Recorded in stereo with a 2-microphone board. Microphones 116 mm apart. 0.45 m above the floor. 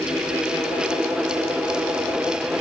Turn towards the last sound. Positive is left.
No sound to turn to.